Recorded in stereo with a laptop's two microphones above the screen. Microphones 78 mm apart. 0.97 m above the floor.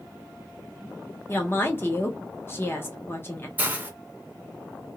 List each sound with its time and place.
1.3 s a woman speaking: 30° left (ahead or behind), 0.5 m
3.6 s a hiss: 20° right (ahead or behind), 0.5 m